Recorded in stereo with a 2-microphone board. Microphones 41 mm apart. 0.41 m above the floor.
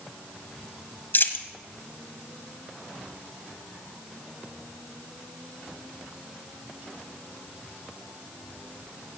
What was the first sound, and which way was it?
A dropped coin, 55° left (ahead or behind).